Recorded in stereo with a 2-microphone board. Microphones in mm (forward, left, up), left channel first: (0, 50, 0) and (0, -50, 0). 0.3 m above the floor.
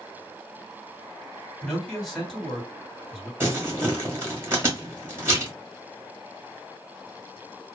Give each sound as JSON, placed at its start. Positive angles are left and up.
{"t": 1.6, "sound": "a man speaking", "side_deg": 0, "distance_m": 2.0}
{"t": 3.4, "sound": "crumpling", "side_deg": -25, "distance_m": 1.6}